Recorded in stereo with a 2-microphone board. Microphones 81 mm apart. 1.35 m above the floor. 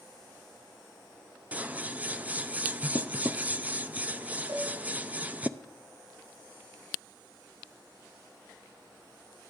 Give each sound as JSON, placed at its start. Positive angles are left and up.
{"t": 1.5, "sound": "scissors", "side_deg": -20, "distance_m": 0.6}
{"t": 4.5, "sound": "a cowbell", "side_deg": -35, "distance_m": 7.0}